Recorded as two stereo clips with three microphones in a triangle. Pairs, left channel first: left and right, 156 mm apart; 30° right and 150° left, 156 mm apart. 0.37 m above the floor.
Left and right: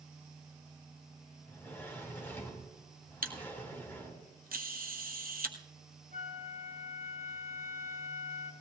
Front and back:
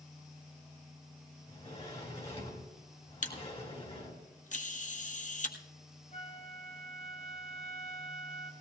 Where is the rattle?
I don't hear a rattle.